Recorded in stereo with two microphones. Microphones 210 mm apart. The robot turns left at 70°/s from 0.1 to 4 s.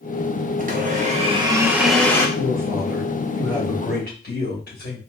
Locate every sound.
0.6 s a blender: 85° right, 0.8 m; by 2.3 s 155° left, 0.8 m
2.4 s a man speaking: 120° right, 2.0 m; by 5.0 s 125° left, 2.0 m